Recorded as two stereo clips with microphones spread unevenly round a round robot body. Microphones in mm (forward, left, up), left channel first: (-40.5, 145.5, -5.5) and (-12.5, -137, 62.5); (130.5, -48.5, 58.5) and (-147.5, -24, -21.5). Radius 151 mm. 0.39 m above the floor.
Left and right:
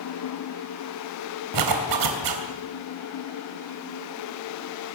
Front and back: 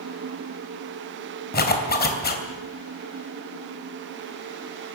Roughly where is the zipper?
Right.